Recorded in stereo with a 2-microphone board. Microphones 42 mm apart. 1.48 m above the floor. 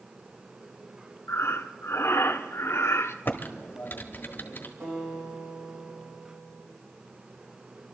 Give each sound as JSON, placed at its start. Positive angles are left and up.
{"t": 1.3, "sound": "breathing", "side_deg": 85, "distance_m": 0.7}
{"t": 3.2, "sound": "typing on a keyboard", "side_deg": 50, "distance_m": 1.3}
{"t": 4.8, "sound": "a guitar", "side_deg": -80, "distance_m": 8.5}